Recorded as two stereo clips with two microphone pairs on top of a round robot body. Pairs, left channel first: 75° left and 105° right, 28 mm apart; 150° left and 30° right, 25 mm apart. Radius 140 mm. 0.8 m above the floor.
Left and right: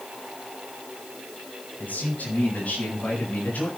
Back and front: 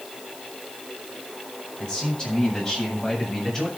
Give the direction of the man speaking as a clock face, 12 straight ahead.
9 o'clock.